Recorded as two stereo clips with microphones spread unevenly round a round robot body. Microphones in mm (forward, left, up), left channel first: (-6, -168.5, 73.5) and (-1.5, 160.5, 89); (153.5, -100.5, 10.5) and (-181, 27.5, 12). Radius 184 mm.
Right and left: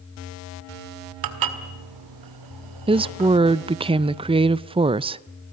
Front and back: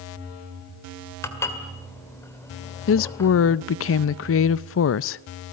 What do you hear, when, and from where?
1.2 s dishes clattering: 60° left, 1.8 m
2.9 s a woman speaking: 15° left, 0.5 m